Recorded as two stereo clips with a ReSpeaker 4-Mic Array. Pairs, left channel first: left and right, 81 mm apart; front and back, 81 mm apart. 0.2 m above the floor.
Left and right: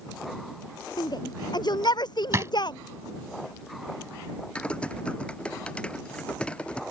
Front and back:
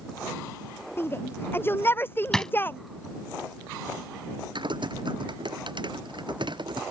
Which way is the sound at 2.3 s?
80° right.